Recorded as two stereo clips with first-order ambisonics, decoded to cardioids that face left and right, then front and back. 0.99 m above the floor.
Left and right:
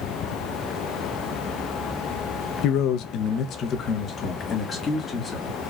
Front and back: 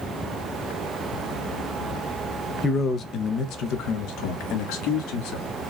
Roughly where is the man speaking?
Left.